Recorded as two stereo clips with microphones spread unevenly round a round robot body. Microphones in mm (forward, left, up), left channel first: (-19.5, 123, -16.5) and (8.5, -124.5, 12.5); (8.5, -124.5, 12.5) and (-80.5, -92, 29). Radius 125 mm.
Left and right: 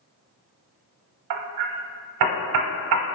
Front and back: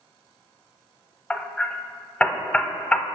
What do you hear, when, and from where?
1.3 s hammering: 95° right, 0.6 m